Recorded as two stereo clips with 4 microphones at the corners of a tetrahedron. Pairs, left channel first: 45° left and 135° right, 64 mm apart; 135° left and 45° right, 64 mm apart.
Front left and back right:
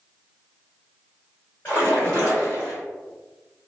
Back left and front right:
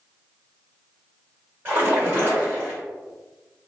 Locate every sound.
1.6 s a splash: 10° right, 2.0 m